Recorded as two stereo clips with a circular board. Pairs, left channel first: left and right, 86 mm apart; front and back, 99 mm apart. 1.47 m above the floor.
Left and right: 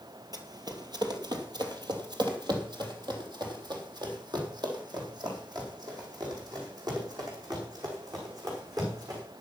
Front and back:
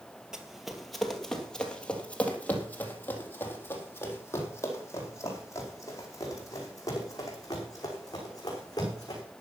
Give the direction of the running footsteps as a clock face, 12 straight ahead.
3 o'clock.